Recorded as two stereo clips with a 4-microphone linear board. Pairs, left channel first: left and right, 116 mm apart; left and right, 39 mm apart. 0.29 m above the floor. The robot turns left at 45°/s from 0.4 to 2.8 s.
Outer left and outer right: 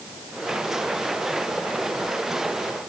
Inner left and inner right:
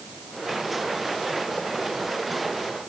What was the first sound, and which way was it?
Only background noise.